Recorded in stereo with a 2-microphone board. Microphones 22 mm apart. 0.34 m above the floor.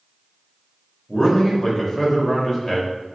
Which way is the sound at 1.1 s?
25° left (ahead or behind).